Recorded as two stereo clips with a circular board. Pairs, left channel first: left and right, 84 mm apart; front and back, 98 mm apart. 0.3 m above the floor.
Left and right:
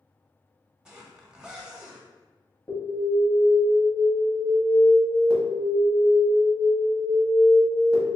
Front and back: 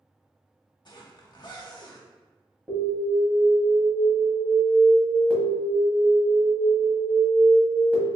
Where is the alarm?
110° left, 1.2 m.